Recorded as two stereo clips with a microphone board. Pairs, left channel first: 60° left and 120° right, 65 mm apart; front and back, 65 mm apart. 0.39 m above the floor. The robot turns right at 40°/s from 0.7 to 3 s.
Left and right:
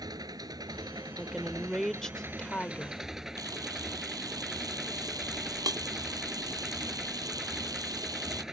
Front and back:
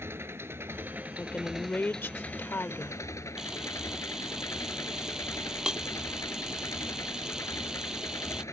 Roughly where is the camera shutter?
Right.